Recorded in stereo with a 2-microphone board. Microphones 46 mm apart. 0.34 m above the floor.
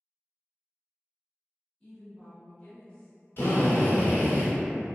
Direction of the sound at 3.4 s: 50° left (ahead or behind).